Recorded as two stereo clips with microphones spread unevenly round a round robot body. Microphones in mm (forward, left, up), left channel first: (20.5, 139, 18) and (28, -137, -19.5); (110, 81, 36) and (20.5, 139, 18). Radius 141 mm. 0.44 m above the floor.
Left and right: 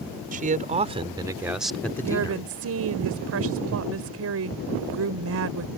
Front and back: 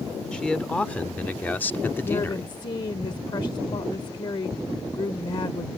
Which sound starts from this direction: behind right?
A man speaking, at 0.3 s.